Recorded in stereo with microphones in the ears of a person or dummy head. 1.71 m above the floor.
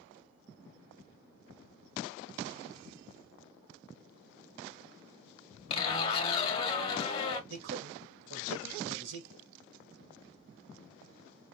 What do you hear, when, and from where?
5.7 s a zipper: 35° left (ahead or behind), 1.4 m
7.5 s a man speaking: 70° right (ahead or behind), 1.6 m